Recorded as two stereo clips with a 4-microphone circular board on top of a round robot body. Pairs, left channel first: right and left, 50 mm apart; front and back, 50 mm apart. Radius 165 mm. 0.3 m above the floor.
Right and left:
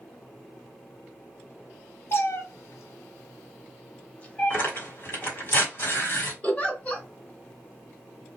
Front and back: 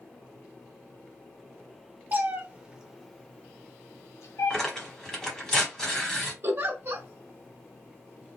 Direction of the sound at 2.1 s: 130° right.